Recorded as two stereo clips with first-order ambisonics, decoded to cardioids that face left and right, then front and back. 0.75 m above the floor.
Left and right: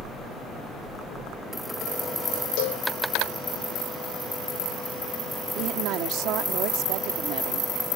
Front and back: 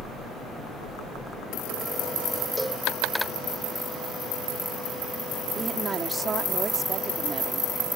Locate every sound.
2.6 s a cowbell: 95° left
5.5 s a woman speaking: 115° right